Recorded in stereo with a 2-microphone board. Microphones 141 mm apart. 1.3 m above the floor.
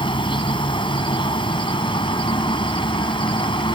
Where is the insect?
35° left (ahead or behind).